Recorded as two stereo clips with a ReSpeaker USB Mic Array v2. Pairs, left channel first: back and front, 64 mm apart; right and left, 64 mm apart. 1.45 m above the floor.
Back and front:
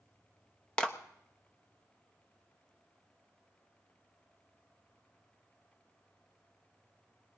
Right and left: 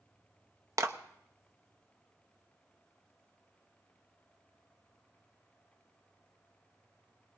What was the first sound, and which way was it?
A clap, 110° left.